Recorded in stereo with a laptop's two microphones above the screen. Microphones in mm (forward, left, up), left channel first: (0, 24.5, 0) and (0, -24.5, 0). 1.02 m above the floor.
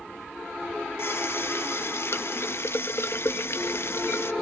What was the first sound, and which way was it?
A running tap, 55° left (ahead or behind).